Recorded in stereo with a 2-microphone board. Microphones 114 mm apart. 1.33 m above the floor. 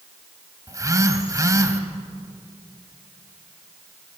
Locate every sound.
0.7 s a phone buzzing: 30° right (ahead or behind), 1.5 m